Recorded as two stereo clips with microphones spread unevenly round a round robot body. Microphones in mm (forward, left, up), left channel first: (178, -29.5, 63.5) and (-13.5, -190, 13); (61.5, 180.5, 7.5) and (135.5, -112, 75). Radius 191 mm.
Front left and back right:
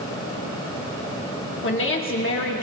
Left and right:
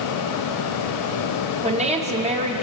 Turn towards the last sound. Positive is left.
turn(degrees=-5)